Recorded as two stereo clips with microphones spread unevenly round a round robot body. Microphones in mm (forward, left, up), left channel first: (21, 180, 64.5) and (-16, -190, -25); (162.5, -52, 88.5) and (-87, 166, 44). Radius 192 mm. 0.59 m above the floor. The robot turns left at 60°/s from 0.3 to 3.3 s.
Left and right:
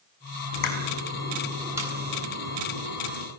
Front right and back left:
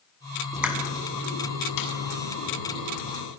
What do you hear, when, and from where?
0.5 s a pop: 60° left, 7 m; by 3.3 s 105° right, 7 m